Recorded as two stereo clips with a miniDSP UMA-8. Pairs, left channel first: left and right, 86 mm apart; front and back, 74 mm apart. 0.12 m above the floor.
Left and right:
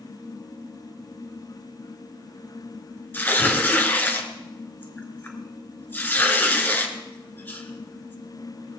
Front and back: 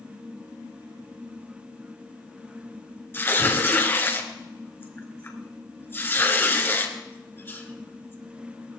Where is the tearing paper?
40° left, 2 m.